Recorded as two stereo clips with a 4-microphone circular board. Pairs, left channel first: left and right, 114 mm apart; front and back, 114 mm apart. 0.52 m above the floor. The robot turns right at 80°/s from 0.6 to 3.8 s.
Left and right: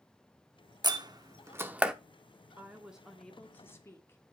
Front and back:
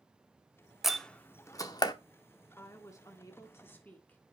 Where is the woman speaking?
40° right, 1.4 m; by 4.2 s 55° left, 1.4 m.